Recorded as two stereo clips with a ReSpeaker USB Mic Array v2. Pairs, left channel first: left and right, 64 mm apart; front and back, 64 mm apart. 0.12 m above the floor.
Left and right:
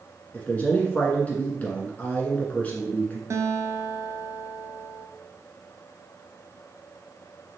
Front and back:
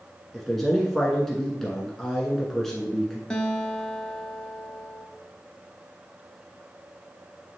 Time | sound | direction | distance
0.3 | a man speaking | 80° left | 1.1 m
3.3 | a guitar | 70° right | 0.9 m